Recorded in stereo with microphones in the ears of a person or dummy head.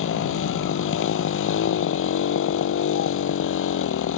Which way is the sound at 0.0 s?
85° left.